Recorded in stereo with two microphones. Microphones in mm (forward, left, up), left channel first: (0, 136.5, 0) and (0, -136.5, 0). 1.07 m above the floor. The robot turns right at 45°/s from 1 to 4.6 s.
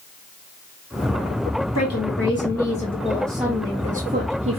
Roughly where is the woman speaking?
Left.